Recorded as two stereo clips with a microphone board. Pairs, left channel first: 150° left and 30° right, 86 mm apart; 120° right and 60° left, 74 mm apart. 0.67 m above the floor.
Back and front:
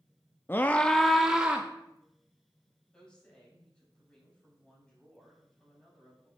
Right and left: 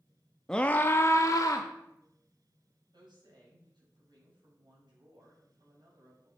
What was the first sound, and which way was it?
A scream, 165° left.